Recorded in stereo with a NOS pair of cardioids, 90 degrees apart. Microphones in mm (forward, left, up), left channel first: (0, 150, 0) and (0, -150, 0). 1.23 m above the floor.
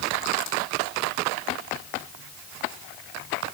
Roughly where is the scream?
No scream in this recording.